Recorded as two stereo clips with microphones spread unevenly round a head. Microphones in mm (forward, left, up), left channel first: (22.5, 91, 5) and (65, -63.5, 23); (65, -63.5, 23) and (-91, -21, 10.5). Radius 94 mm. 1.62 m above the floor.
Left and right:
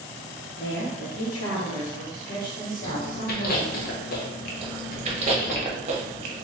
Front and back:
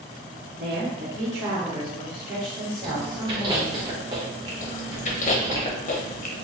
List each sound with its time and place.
0.6 s a woman speaking: 125° left, 1.4 m; by 3.8 s 60° left, 2.5 m
2.8 s chewing: 100° left, 0.7 m
4.6 s chewing: 40° right, 0.7 m